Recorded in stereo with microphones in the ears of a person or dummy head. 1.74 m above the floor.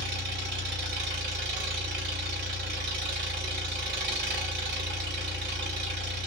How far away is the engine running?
About 2.5 m.